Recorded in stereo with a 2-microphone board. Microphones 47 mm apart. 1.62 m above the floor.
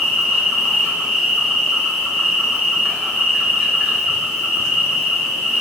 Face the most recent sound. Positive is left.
turn(degrees=-15)  # may be behind; listen again after turning